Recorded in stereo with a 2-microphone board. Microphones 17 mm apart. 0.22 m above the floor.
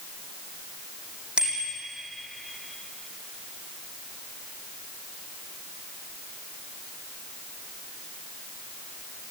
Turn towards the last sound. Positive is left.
turn(degrees=-60)  # may be behind; listen again after turning